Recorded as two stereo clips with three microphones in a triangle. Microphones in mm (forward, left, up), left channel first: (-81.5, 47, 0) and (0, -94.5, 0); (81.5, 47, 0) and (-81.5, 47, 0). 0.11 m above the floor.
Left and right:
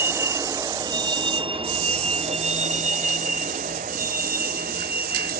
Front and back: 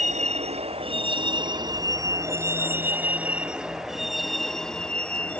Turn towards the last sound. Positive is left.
turn(degrees=-80)